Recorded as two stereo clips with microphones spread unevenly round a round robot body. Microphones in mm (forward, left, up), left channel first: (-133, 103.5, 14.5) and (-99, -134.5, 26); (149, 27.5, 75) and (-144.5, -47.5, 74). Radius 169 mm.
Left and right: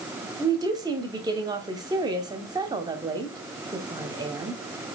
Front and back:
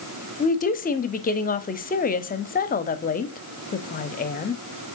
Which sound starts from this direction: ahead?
A woman speaking, at 0.4 s.